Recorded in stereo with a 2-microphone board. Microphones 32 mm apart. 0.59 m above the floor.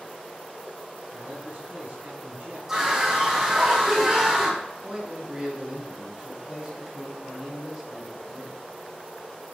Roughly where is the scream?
Centre.